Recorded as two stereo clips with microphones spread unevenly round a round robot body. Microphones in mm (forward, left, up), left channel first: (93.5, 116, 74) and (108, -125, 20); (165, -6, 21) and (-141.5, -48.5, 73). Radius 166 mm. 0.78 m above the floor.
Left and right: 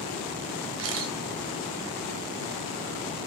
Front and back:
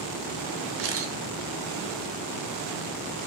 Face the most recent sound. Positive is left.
turn(degrees=-125)